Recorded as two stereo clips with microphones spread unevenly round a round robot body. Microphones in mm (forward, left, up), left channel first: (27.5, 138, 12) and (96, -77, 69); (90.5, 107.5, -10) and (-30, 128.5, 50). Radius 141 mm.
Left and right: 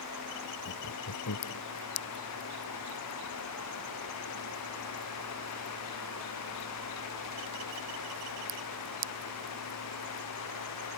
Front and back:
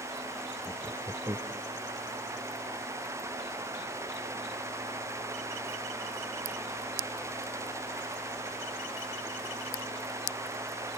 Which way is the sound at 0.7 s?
110° left.